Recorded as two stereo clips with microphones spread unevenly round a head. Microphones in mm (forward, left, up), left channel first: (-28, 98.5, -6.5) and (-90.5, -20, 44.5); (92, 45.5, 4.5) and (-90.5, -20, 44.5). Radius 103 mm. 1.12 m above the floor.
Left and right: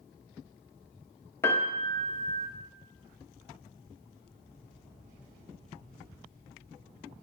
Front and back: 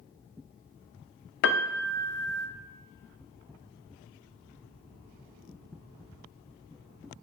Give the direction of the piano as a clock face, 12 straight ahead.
12 o'clock.